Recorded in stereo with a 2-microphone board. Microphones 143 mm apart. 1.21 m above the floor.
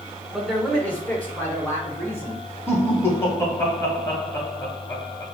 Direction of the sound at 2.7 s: 15° left (ahead or behind).